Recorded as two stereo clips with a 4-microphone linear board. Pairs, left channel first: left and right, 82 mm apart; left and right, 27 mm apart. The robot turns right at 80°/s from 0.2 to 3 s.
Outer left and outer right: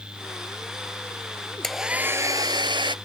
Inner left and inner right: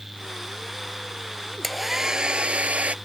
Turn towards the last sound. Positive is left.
turn(degrees=-75)